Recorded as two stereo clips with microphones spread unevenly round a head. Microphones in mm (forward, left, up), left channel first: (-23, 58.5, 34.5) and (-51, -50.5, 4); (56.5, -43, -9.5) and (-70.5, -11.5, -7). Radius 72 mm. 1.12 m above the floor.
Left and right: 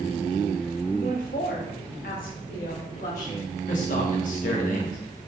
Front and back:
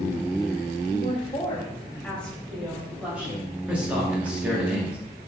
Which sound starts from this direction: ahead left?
A woman speaking, at 0.9 s.